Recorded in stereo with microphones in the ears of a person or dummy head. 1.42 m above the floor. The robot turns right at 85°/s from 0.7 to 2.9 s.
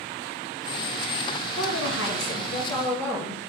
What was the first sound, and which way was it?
A woman speaking, 55° left.